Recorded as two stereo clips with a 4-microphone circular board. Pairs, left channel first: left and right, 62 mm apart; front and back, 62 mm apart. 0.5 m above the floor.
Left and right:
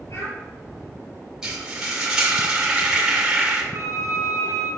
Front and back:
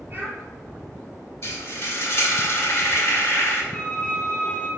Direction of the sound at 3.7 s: 60° left.